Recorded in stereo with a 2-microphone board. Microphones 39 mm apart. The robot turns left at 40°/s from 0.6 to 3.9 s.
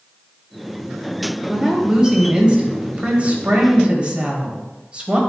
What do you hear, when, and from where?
1.5 s a woman speaking: 20° right, 1.6 m; by 5.2 s 115° right, 1.6 m